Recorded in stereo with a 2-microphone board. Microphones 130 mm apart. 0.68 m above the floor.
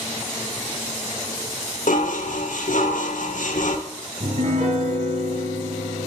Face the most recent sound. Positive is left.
turn(degrees=-85)